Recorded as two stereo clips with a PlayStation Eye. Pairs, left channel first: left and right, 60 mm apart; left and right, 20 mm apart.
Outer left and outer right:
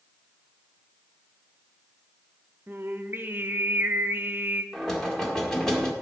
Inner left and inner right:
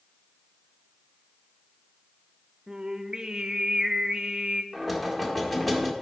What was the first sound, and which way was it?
Singing, 35° right (ahead or behind).